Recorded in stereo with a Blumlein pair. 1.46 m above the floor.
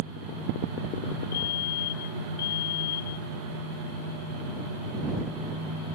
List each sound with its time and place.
1.3 s a fire alarm: 55° left